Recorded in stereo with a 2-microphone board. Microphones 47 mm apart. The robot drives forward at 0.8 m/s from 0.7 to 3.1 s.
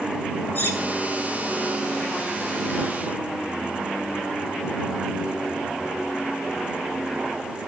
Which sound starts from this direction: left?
Cutlery clinking, at 0.6 s.